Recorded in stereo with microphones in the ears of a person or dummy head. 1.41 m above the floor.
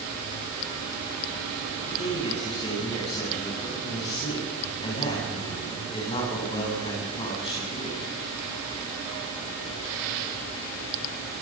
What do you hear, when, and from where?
1.9 s a man speaking: 30° left (ahead or behind), 9.5 m